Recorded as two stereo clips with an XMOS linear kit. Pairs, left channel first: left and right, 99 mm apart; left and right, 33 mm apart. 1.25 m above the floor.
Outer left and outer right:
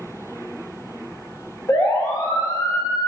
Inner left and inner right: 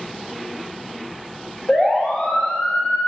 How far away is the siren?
About 5 m.